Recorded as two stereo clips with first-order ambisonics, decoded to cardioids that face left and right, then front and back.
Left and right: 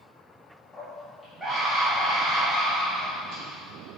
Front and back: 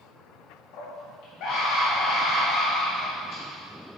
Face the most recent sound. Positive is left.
turn(degrees=-50)